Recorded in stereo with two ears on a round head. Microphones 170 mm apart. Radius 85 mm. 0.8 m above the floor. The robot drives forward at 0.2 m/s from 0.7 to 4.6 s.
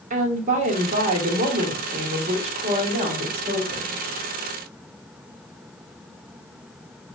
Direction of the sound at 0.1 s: 40° right (ahead or behind).